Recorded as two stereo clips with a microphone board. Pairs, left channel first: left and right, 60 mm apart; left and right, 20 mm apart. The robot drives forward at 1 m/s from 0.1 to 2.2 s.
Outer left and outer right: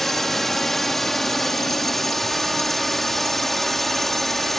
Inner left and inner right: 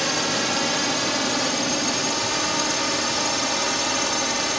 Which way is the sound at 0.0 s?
5° left (ahead or behind).